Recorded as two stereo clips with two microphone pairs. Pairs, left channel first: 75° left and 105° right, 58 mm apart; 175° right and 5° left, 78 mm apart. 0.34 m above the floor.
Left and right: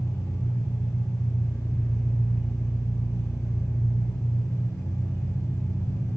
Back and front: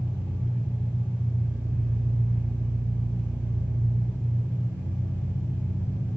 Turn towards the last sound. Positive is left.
turn(degrees=70)